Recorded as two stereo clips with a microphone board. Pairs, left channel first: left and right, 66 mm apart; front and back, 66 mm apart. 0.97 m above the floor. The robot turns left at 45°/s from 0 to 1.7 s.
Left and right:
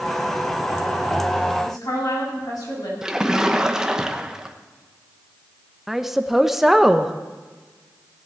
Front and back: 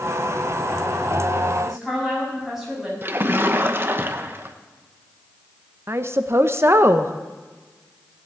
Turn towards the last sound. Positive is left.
turn(degrees=-175)